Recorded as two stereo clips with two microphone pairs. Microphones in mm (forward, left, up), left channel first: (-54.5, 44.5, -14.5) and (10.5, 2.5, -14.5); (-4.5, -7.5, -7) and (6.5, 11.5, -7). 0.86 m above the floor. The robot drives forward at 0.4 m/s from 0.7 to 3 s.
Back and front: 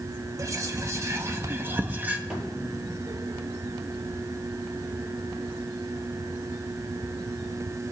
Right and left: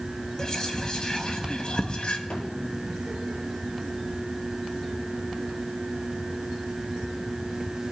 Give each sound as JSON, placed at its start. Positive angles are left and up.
{"t": 0.4, "sound": "whispering", "azimuth_deg": -70, "distance_m": 1.5}
{"t": 2.3, "sound": "a thud", "azimuth_deg": -110, "distance_m": 5.5}